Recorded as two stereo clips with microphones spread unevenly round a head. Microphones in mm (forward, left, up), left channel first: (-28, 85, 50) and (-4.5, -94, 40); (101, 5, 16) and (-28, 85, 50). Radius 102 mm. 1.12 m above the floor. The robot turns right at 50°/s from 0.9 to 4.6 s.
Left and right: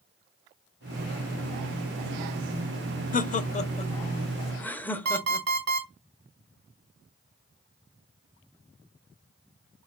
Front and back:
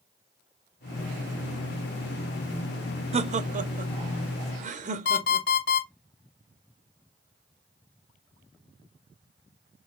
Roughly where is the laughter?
Left.